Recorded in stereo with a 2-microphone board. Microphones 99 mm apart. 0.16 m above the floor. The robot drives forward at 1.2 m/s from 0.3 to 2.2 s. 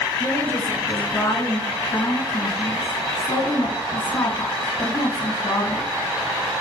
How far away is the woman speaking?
About 2.5 m.